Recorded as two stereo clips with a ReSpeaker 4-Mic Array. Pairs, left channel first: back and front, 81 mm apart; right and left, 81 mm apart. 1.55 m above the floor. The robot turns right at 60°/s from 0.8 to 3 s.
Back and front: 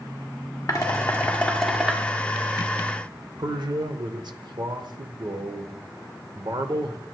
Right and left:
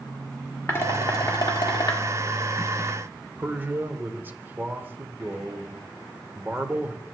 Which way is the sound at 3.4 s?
25° left.